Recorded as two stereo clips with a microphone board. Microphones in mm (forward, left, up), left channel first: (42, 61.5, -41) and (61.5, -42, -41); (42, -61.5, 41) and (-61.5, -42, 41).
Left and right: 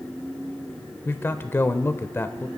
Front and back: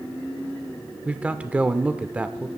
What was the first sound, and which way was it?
A man speaking, 115° left.